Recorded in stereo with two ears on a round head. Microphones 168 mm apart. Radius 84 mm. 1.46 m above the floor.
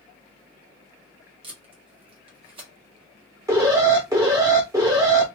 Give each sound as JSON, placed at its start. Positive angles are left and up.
{"t": 1.4, "sound": "tape being pulled", "side_deg": -30, "distance_m": 1.3}
{"t": 3.5, "sound": "an alarm", "side_deg": -20, "distance_m": 1.6}